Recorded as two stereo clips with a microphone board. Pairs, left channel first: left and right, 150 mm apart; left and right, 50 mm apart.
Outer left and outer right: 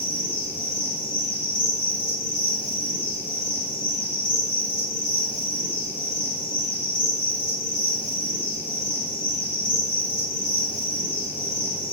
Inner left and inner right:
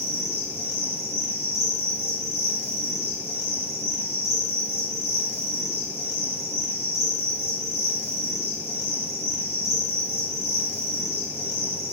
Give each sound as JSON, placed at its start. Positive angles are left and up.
{"t": 0.0, "sound": "an insect", "side_deg": 65, "distance_m": 1.7}